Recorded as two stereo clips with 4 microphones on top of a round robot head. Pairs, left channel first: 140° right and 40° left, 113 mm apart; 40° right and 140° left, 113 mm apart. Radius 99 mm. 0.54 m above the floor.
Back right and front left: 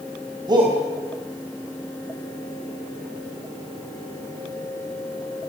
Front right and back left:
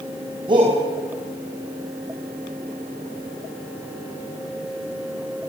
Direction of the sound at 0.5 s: 90° left.